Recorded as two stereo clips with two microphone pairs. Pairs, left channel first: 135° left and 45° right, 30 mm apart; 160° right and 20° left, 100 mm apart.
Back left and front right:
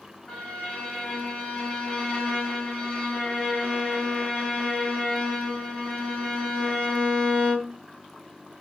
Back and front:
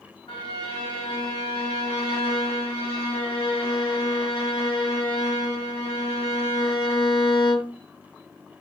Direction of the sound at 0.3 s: 160° right.